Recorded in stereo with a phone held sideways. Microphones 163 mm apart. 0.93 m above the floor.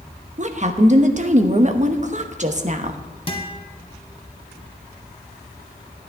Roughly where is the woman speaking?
Right.